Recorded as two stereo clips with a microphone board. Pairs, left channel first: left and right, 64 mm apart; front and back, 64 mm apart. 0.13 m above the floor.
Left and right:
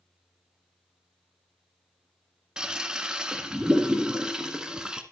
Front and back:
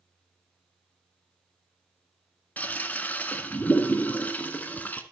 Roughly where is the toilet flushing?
Ahead right.